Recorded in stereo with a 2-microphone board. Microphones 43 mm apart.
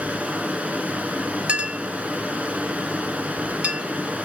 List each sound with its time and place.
0.0 s running water: 35° right (ahead or behind), 0.7 m
1.5 s a clink: 35° right (ahead or behind), 0.7 m